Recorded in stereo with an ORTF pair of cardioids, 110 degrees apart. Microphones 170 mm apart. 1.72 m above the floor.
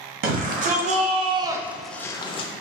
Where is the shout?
65° right, 1.1 m; by 2.5 s 45° left, 0.6 m.